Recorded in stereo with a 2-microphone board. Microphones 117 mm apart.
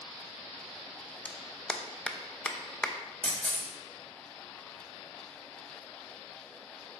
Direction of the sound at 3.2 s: 10° left (ahead or behind).